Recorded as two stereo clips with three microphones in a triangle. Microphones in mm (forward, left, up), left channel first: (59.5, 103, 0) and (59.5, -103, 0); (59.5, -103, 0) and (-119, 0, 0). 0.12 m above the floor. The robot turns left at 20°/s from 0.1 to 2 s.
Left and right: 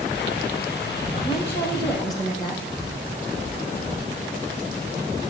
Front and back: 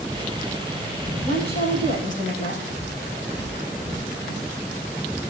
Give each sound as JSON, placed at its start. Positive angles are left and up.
{"t": 1.2, "sound": "a woman speaking", "azimuth_deg": 35, "distance_m": 5.5}